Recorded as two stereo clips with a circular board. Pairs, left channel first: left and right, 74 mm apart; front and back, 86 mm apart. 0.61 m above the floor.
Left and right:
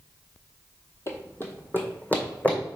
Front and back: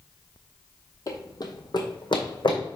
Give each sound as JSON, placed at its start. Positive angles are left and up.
{"t": 1.1, "sound": "running footsteps", "azimuth_deg": 40, "distance_m": 1.2}